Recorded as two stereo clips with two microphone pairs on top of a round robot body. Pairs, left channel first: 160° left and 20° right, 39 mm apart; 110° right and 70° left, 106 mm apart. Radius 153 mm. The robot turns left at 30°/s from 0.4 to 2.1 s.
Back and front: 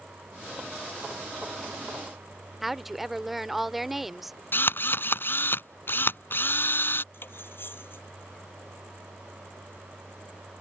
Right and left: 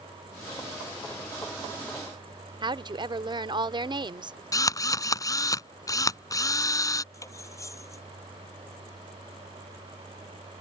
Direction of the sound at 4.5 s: 170° right.